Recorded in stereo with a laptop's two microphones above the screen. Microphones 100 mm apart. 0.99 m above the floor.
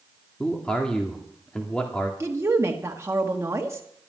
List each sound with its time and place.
0.4 s a man speaking: 10° left (ahead or behind), 2 m
2.2 s a woman speaking: 25° right (ahead or behind), 1.2 m